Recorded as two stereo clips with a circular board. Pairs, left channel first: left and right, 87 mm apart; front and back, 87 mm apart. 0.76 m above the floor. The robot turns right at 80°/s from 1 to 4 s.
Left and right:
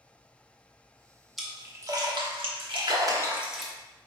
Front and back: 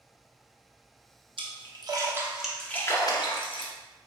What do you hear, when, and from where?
1.4 s a splash: straight behind, 0.9 m; by 3.7 s 10° left, 0.9 m